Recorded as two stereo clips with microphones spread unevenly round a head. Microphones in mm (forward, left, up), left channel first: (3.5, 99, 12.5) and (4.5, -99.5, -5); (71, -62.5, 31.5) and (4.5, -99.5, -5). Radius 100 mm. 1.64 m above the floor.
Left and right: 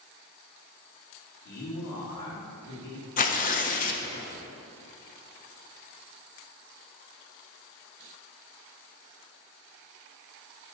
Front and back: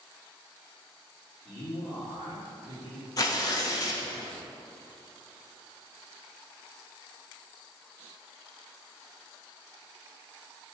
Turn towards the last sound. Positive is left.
turn(degrees=45)